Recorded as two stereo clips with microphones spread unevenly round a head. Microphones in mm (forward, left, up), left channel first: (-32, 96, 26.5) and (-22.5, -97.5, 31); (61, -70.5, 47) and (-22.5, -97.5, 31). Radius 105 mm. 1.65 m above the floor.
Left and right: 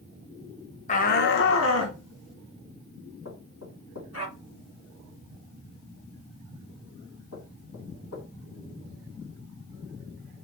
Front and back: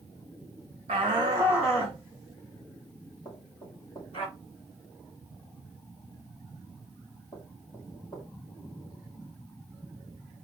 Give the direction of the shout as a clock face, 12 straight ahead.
7 o'clock.